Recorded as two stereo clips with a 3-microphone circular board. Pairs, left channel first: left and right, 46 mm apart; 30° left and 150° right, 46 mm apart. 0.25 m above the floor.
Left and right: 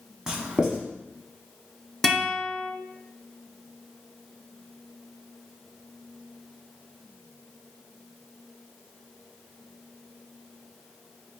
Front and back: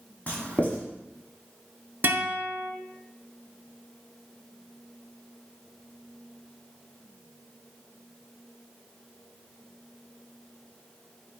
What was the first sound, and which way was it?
Writing, 20° right.